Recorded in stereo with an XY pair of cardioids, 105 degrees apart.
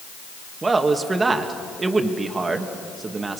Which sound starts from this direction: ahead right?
A man speaking, at 0.6 s.